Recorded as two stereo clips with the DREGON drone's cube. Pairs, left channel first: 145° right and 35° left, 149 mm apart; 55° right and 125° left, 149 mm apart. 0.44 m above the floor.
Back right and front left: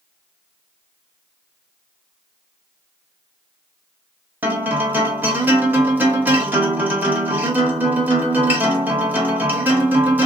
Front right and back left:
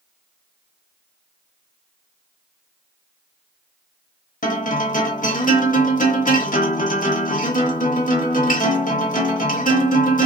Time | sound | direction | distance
4.4 | a guitar | 45° right | 0.7 m